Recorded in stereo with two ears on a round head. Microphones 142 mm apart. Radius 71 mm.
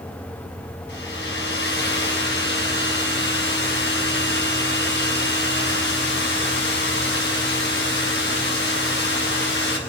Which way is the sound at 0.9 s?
80° left.